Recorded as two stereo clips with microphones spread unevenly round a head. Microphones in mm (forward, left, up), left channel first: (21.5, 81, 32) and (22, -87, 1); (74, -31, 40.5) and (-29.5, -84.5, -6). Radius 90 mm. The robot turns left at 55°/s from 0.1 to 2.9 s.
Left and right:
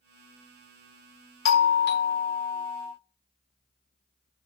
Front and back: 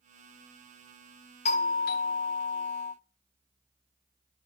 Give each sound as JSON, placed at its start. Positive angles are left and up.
{"t": 1.4, "sound": "a doorbell", "azimuth_deg": 85, "distance_m": 0.9}